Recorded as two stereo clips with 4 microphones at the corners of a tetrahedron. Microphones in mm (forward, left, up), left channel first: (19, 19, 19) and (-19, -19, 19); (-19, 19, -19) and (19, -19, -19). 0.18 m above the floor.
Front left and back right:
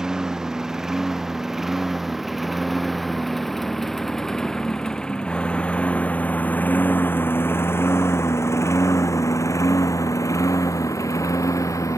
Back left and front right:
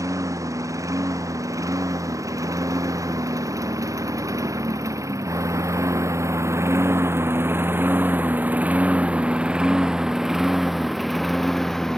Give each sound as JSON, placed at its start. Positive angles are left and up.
{"t": 0.0, "sound": "a lawn mower", "azimuth_deg": -55}